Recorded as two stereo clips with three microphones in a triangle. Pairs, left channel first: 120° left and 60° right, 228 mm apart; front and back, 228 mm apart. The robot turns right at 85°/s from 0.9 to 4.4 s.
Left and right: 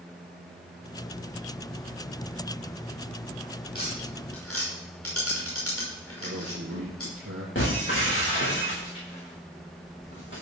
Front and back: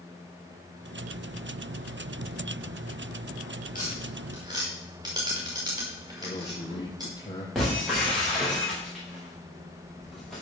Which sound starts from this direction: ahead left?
Tapping, at 3.8 s.